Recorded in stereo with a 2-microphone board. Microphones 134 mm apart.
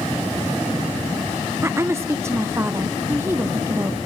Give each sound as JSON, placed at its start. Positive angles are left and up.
{"t": 1.6, "sound": "a woman speaking", "side_deg": -20, "distance_m": 0.6}